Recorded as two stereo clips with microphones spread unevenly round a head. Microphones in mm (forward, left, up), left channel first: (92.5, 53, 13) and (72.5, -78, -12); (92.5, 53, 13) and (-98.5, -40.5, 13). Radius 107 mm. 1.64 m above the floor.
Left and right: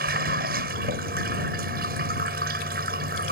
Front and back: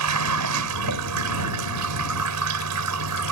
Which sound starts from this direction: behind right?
Running water, at 0.0 s.